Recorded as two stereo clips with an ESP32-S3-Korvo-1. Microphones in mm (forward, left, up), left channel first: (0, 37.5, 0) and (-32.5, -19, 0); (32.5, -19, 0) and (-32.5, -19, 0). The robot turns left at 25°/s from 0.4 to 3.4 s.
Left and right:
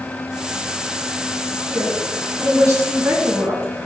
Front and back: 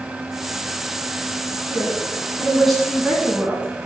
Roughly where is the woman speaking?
Ahead right.